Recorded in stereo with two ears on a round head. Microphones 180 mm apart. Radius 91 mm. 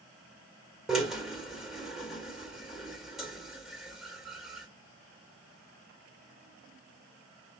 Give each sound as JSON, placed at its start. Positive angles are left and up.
{"t": 0.9, "sound": "a drill", "side_deg": 0, "distance_m": 1.7}